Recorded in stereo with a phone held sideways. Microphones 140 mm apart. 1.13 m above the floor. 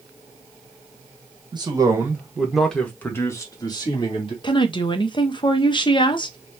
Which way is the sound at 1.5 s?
35° right (ahead or behind).